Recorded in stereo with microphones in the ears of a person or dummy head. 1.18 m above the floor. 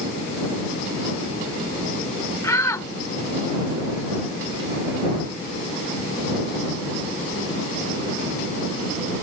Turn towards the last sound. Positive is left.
turn(degrees=15)  # may be behind; listen again after turning